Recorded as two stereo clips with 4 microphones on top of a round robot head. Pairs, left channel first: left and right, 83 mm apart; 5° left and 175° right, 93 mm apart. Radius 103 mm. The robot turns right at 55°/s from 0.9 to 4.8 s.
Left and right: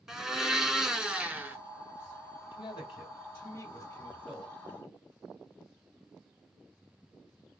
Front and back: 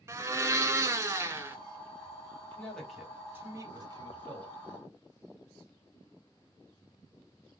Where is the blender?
175° right, 1.3 m; by 1.6 s 140° right, 1.3 m.